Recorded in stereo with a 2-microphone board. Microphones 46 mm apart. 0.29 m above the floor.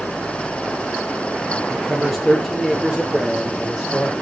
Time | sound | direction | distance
1.7 | a man speaking | centre (ahead or behind) | 5.5 m